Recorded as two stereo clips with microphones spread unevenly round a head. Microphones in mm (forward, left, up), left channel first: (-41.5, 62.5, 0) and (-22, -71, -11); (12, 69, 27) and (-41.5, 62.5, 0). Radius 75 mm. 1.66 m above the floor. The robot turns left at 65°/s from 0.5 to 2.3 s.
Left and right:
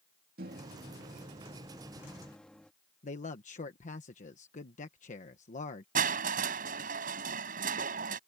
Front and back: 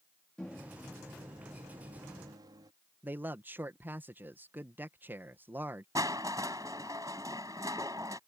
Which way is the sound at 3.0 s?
125° left.